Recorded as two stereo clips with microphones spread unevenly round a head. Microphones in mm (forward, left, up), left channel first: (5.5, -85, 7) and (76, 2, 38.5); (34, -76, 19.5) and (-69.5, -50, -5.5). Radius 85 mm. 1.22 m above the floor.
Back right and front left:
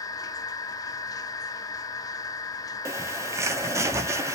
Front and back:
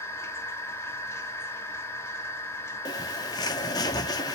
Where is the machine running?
65° right, 1.4 m.